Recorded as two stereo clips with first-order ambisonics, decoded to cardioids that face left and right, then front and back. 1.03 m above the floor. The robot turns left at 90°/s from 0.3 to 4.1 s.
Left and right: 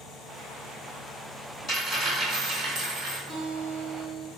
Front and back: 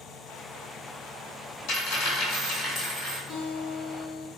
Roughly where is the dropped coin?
Ahead left.